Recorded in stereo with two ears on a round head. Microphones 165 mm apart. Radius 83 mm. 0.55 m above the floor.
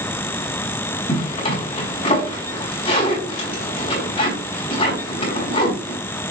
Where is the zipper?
30° left (ahead or behind), 4.5 m.